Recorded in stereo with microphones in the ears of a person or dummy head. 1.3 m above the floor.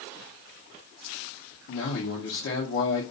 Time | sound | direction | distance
1.7 | a man speaking | 55° left (ahead or behind) | 0.6 m